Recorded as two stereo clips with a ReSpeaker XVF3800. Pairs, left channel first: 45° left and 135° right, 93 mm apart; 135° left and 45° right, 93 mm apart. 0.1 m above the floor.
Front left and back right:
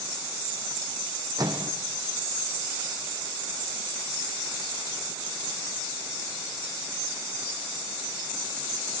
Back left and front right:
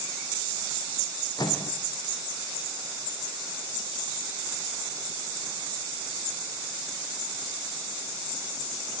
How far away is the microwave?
About 3.5 m.